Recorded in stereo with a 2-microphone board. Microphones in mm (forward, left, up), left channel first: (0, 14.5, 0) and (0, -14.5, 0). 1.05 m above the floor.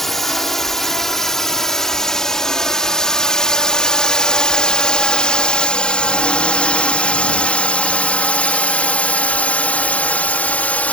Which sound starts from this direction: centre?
A drone, at 0.0 s.